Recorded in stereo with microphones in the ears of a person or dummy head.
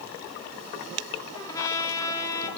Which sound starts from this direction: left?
A trumpet, at 1.3 s.